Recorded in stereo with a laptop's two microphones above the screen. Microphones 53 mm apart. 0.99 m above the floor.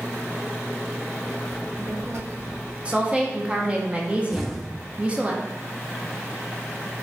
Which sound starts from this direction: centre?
An explosion, at 4.3 s.